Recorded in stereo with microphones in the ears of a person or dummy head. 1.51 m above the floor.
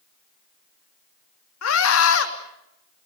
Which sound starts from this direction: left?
A scream, at 1.6 s.